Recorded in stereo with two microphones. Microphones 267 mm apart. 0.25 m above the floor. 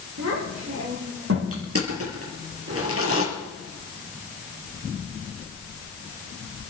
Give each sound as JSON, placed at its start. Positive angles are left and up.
{"t": 0.2, "sound": "a child speaking", "side_deg": -75, "distance_m": 9.5}
{"t": 1.5, "sound": "crushing", "side_deg": -60, "distance_m": 5.5}